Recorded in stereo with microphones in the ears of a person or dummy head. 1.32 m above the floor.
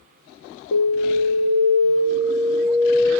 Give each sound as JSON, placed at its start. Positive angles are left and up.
{"t": 0.7, "sound": "an alarm", "side_deg": 50, "distance_m": 1.2}